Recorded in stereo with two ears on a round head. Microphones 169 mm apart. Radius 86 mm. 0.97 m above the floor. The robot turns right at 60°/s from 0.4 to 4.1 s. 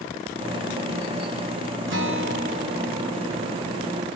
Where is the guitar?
80° right, 1.7 m; by 4.0 s 50° left, 1.7 m.